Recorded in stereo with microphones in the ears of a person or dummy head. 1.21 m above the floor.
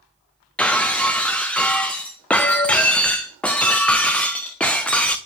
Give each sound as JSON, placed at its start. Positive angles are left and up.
{"t": 0.6, "sound": "breaking glass", "side_deg": 5, "distance_m": 0.5}